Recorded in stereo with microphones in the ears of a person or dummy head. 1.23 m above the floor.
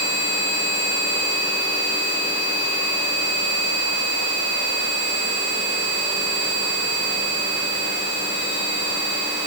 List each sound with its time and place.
Only background noise.